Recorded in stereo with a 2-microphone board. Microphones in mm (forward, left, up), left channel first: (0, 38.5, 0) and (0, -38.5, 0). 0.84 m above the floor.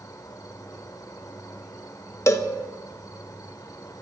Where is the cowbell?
40° left (ahead or behind), 0.9 m.